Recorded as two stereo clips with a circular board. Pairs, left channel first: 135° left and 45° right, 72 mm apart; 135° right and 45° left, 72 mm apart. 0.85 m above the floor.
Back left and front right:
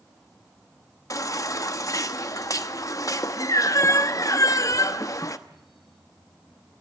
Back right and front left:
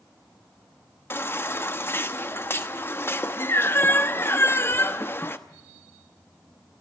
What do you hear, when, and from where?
1.1 s a baby crying: 170° left, 1.0 m